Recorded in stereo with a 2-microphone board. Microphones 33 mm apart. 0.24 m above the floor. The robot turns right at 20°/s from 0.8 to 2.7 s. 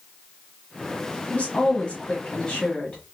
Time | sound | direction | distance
1.3 | a woman speaking | 40° left (ahead or behind) | 1.5 m